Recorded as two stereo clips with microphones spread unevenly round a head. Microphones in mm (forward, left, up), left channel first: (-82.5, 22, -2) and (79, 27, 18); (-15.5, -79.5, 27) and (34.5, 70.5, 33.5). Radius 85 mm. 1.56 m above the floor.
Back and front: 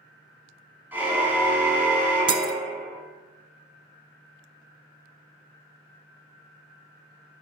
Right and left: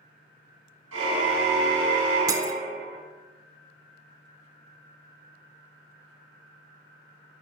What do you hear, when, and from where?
0.9 s a car horn: 80° left, 7.5 m
2.3 s breaking glass: 20° left, 1.4 m